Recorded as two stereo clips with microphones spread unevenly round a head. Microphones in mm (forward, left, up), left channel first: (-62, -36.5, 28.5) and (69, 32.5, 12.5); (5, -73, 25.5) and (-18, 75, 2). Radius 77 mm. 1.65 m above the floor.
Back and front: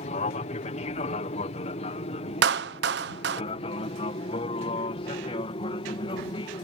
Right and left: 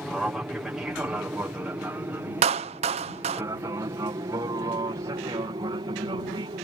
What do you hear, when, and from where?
0.0 s an aircraft: straight behind; by 6.7 s 155° left
2.4 s a clap: 45° left